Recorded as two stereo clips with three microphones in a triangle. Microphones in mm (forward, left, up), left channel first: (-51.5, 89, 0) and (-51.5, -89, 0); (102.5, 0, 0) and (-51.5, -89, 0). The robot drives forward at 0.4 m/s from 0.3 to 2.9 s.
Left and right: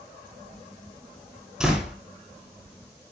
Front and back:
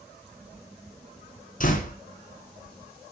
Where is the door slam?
5° right, 2.5 m.